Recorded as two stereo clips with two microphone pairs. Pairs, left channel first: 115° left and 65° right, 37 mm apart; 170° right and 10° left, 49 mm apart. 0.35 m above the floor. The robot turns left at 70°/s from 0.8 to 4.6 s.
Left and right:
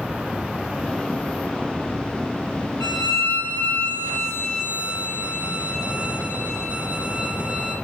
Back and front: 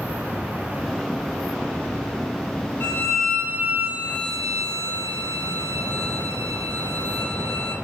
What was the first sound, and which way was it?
A violin, 130° left.